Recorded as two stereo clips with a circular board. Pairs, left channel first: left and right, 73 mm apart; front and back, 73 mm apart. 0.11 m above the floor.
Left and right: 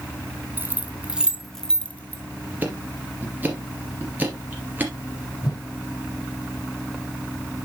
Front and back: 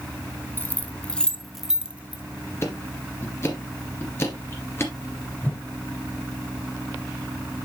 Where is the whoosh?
65° left, 2.5 m.